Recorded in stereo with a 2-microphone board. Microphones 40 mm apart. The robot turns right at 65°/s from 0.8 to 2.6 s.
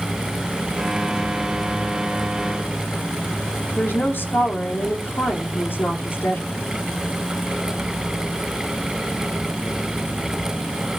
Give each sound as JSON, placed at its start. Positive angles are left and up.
{"t": 3.8, "sound": "a woman speaking", "side_deg": 60, "distance_m": 3.0}